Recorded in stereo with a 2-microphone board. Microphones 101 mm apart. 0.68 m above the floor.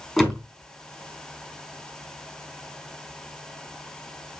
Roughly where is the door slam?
Centre.